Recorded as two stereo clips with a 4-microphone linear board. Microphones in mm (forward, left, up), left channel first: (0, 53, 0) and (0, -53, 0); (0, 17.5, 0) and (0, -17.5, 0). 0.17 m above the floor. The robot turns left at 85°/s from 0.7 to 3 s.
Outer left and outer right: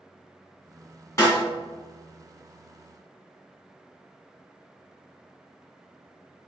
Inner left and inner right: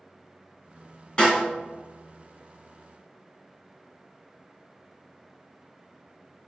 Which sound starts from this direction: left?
A snare drum, at 1.2 s.